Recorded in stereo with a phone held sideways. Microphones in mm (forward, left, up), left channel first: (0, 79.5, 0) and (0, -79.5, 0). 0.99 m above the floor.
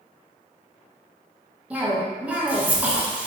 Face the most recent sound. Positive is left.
turn(degrees=-10)  # may be behind; listen again after turning